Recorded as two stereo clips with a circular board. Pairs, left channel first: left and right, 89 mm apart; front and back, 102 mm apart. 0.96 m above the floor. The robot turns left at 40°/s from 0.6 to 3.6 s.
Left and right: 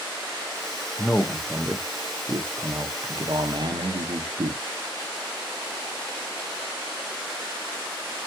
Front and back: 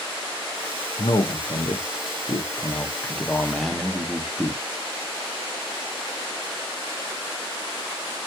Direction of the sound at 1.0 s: 15° left.